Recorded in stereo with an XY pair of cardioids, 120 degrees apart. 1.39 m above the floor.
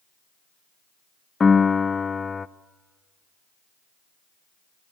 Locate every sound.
1.4 s a piano: 25° left, 0.6 m